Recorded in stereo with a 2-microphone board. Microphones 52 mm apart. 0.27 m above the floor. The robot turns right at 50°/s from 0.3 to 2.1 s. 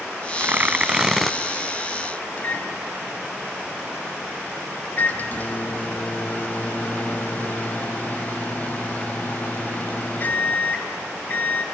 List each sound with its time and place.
0.4 s tearing paper: 50° right, 0.6 m; by 1.4 s straight ahead, 0.6 m
2.4 s a microwave: 35° left (ahead or behind), 0.9 m